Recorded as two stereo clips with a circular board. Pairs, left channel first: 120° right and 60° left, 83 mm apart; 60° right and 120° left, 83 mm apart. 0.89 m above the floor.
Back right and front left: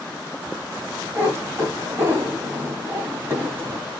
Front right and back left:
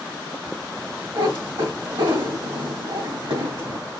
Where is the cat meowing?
120° left, 1.7 m.